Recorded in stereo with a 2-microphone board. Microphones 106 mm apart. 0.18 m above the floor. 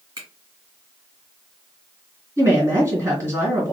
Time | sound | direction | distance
0.2 | a finger snap | 30° right (ahead or behind) | 1.9 m
2.4 | a woman speaking | 25° right (ahead or behind) | 1.7 m